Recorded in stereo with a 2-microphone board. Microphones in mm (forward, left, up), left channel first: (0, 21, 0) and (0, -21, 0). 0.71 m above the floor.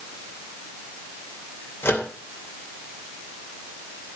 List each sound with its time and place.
1.8 s a microwave: 60° left (ahead or behind), 2.5 m